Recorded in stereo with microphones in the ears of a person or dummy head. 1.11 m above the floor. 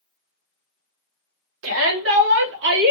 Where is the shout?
80° right, 2 m; by 2.9 s 60° right (ahead or behind), 1.8 m.